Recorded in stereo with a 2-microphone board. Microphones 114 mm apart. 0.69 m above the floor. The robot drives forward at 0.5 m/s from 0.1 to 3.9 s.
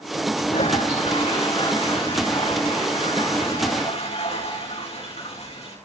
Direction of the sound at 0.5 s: 80° left.